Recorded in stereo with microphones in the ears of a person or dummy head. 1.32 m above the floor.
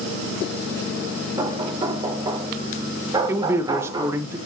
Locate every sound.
1.4 s knocking: 20° right (ahead or behind), 3 m
3.3 s a man speaking: 10° right (ahead or behind), 1.2 m